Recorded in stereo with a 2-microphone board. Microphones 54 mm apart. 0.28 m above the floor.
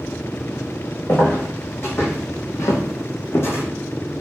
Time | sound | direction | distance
1.1 | footsteps | 40° left (ahead or behind) | 1.1 m